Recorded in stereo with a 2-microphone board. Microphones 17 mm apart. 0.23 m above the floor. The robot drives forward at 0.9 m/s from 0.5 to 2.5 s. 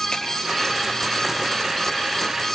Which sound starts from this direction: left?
A finger snap, at 0.1 s.